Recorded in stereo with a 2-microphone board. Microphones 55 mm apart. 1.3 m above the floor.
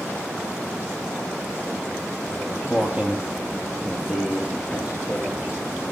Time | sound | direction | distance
2.3 | footsteps | 25° right (ahead or behind) | 2 m